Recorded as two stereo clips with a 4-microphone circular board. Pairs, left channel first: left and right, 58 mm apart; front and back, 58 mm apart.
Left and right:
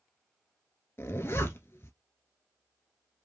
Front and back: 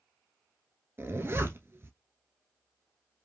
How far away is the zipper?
About 1.0 m.